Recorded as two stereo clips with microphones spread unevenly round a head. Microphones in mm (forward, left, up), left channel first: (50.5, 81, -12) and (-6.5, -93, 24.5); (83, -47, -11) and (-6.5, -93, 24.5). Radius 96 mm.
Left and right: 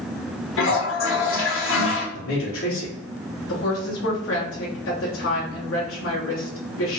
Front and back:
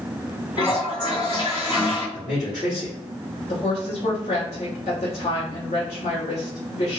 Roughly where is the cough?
I don't hear a cough.